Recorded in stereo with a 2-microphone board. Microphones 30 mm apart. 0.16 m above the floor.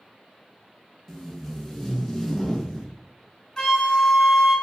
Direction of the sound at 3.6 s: 20° left (ahead or behind).